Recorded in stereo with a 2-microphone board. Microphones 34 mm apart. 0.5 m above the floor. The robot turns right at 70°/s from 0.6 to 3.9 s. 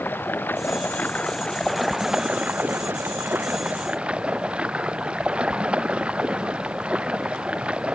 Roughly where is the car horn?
No car horn in this recording.